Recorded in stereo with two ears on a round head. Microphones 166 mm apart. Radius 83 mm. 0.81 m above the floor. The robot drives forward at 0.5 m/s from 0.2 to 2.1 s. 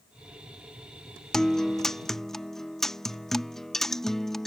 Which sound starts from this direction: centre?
A guitar, at 1.3 s.